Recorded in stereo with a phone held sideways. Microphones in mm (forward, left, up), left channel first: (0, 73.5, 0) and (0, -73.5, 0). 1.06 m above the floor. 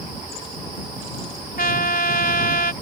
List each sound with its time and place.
1.6 s a trumpet: 85° left